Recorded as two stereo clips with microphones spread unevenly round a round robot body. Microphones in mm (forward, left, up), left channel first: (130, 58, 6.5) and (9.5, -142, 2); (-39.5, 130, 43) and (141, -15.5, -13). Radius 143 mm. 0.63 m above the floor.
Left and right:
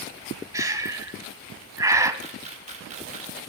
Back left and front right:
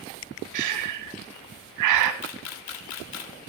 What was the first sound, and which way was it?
Breathing, 45° right.